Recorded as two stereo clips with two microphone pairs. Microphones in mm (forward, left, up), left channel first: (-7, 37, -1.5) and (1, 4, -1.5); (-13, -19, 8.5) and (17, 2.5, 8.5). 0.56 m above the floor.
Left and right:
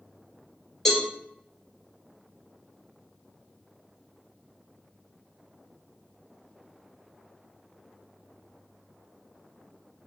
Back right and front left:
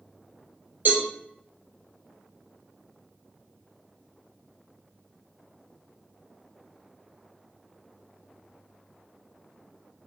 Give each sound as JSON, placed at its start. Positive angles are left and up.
{"t": 0.8, "sound": "a cowbell", "azimuth_deg": 15, "distance_m": 2.5}